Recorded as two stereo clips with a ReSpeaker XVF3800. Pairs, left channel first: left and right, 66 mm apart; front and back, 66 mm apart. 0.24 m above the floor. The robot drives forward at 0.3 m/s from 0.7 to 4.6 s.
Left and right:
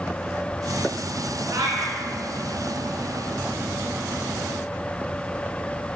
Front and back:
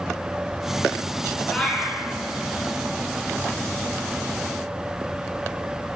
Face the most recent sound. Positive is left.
turn(degrees=-125)